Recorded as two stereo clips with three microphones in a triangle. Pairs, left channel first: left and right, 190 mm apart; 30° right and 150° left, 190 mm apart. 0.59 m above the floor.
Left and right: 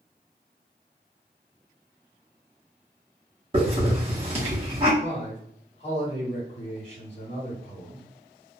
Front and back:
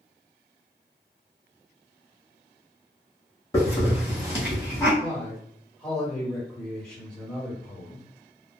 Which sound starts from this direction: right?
A hiss, at 3.5 s.